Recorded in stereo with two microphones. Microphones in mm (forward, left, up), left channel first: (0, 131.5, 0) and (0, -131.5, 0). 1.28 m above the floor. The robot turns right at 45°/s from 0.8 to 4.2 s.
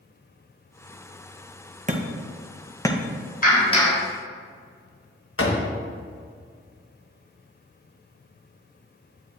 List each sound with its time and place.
1.9 s hammering: 30° right (ahead or behind), 0.9 m; by 3.0 s 20° left (ahead or behind), 0.9 m
3.4 s a clap: 35° left (ahead or behind), 3.5 m; by 4.0 s 10° left (ahead or behind), 3.5 m
5.4 s a door slam: 60° left (ahead or behind), 1.3 m